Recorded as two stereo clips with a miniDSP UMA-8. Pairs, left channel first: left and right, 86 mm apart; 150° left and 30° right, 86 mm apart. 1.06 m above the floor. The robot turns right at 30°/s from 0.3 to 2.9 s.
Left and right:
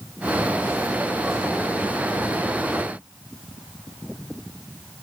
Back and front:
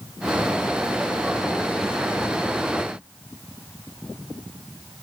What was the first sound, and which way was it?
Only background noise.